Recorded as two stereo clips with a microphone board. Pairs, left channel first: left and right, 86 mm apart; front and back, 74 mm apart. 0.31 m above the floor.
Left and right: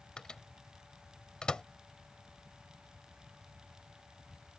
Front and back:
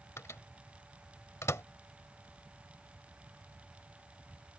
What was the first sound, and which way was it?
A microwave, 15° left.